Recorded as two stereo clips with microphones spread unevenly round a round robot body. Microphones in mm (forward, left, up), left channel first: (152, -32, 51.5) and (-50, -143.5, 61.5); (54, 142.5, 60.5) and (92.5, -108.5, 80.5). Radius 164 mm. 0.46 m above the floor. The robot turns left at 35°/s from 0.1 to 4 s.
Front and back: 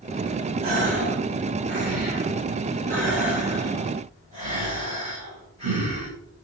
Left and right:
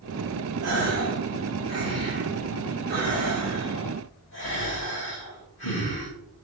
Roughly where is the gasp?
Right.